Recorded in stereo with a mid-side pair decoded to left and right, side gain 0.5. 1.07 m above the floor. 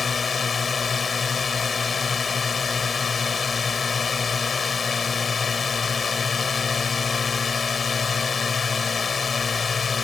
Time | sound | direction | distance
0.0 | a drone | 35° left | ?